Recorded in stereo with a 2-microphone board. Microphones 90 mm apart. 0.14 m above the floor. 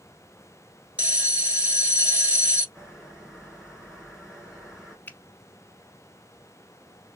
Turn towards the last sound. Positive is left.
turn(degrees=20)  # may be behind; listen again after turning